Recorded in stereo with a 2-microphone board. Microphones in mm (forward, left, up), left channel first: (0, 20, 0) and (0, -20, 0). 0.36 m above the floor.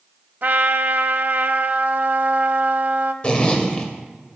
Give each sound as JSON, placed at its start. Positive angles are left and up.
{"t": 0.4, "sound": "a trumpet", "side_deg": -50, "distance_m": 0.6}
{"t": 3.2, "sound": "a zipper", "side_deg": 25, "distance_m": 1.7}